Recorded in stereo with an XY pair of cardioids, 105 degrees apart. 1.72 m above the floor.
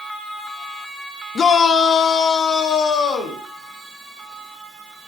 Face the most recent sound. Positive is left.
turn(degrees=70)